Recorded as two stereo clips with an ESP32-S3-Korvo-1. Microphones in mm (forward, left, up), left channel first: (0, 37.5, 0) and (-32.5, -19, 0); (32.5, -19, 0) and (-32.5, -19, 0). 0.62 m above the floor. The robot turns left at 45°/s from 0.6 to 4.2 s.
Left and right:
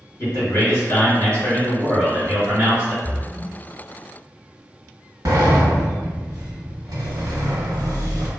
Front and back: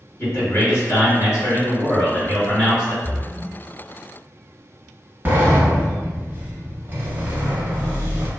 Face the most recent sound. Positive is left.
turn(degrees=-125)